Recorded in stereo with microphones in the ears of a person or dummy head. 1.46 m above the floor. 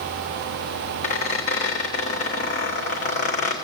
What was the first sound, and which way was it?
A squeak, 35° left (ahead or behind).